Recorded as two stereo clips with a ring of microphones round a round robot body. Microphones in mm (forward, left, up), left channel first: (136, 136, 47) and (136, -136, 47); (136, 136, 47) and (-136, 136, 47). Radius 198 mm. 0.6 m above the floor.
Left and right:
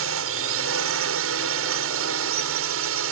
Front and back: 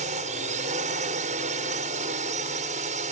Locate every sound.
0.0 s a drone: 115° right